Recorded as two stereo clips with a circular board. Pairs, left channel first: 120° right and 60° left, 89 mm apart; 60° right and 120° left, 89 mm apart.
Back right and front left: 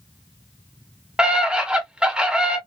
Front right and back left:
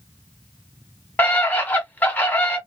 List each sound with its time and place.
1.2 s a scream: 10° right, 1.2 m